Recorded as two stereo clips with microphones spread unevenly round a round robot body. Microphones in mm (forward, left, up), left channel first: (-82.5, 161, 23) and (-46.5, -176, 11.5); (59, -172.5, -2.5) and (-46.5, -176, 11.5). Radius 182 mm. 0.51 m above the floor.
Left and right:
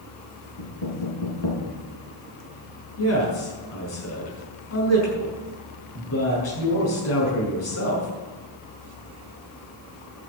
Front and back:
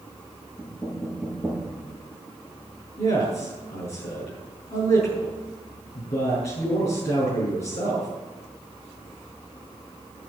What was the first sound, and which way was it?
Knocking, 80° left.